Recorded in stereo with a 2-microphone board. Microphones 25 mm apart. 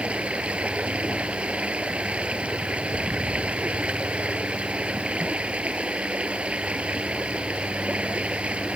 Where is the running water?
60° right (ahead or behind).